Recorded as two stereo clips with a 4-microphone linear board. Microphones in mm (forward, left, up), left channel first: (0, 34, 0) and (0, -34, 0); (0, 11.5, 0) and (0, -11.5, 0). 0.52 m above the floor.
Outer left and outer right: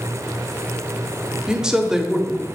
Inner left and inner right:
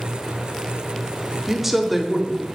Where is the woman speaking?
10° right (ahead or behind), 0.8 m.